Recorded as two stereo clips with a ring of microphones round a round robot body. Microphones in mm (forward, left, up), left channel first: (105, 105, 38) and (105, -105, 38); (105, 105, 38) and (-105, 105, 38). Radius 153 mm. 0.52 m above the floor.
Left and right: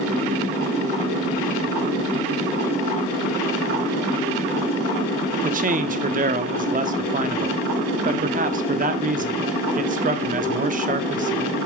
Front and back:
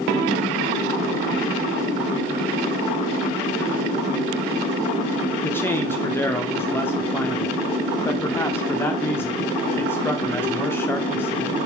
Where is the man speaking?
75° right, 0.8 m.